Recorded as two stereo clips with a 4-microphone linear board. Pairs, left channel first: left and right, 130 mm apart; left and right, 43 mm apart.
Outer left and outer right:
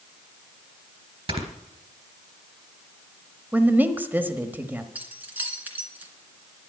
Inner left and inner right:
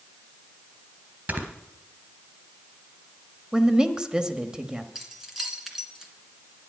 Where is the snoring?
50° right (ahead or behind), 3 m.